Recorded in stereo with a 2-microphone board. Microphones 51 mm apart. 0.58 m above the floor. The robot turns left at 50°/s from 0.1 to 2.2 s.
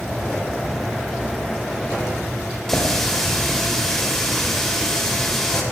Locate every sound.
2.7 s a running tap: 5° left (ahead or behind), 1.5 m